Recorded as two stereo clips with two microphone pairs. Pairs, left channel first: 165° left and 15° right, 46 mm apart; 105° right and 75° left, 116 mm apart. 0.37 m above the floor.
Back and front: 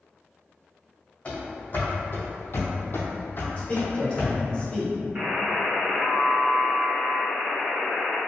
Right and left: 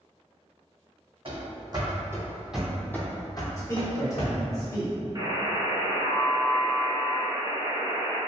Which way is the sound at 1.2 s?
110° left.